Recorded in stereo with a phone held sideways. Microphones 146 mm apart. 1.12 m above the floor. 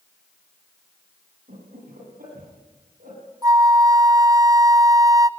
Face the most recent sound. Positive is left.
turn(degrees=-25)  # may be behind; listen again after turning